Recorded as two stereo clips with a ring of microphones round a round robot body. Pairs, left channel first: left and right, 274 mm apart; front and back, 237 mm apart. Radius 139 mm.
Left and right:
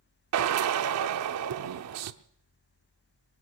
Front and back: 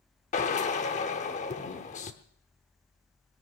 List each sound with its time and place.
0.3 s a drill: 65° right, 0.8 m